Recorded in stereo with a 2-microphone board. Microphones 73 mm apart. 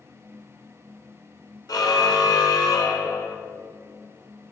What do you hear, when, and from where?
1.7 s a car horn: 70° left (ahead or behind), 2.5 m; by 3.4 s 60° left (ahead or behind), 3.5 m